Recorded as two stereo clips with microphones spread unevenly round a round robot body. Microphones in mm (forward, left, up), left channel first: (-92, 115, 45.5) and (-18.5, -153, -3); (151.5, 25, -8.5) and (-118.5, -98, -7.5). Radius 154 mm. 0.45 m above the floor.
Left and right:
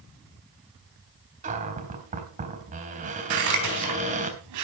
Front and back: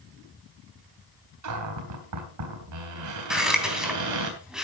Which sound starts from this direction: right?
Scissors, at 3.3 s.